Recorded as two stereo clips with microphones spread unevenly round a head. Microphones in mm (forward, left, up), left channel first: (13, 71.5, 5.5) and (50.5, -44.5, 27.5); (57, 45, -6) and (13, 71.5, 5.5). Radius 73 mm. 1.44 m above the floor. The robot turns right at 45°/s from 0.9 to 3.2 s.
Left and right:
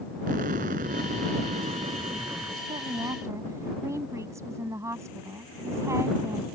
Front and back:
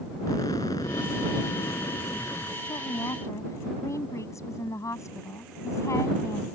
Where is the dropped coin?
I don't hear a dropped coin.